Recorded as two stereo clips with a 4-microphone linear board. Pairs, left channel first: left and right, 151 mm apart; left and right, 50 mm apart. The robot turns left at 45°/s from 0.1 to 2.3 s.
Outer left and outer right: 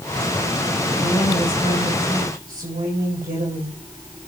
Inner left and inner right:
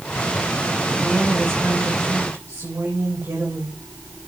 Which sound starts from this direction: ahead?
A woman speaking, at 1.0 s.